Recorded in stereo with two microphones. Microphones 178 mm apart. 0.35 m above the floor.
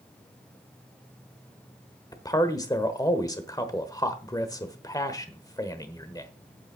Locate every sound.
2.1 s a man speaking: 20° left (ahead or behind), 1.1 m